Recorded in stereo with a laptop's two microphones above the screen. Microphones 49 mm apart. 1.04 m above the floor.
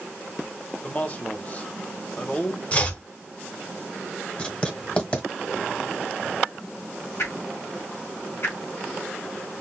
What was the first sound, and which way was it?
A man speaking, 30° left (ahead or behind).